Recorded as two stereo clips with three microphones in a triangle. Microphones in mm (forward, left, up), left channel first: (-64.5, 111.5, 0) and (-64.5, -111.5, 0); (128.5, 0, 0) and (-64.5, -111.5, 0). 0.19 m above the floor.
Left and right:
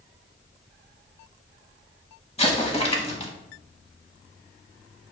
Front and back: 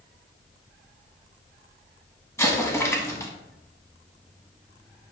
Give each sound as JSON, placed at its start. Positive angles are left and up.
{"t": 2.4, "sound": "an explosion", "azimuth_deg": 90, "distance_m": 0.7}